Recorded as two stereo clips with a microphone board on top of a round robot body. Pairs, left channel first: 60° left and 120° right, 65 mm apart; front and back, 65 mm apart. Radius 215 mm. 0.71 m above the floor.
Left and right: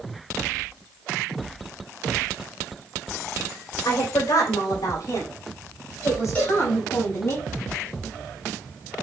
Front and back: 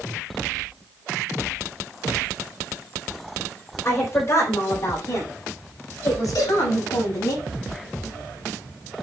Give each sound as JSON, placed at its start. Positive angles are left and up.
{"t": 3.9, "sound": "a woman speaking", "azimuth_deg": 45, "distance_m": 4.0}
{"t": 6.3, "sound": "a cowbell", "azimuth_deg": -10, "distance_m": 5.0}